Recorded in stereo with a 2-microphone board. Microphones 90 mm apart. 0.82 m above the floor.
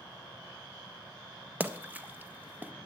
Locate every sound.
1.6 s a splash: 20° right (ahead or behind), 0.6 m